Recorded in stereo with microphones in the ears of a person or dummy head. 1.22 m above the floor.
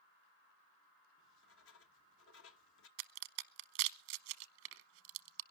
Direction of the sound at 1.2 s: 85° left.